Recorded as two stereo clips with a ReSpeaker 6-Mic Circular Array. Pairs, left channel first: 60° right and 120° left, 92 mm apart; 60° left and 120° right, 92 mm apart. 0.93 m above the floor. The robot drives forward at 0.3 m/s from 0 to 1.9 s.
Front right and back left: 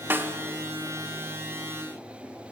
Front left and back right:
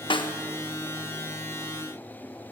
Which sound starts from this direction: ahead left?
A snare drum, at 0.1 s.